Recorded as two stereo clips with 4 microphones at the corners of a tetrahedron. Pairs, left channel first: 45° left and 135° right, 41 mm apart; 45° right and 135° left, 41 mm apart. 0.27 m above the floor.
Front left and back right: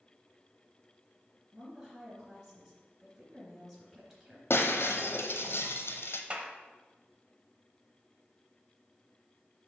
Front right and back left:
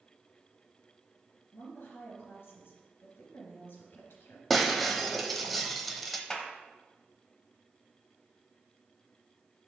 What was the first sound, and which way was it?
A woman speaking, 65° right.